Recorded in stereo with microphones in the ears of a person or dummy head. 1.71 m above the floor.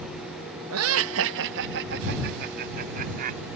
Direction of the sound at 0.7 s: 80° right.